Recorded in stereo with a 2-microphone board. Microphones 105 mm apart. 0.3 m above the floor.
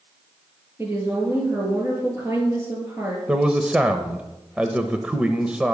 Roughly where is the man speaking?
Centre.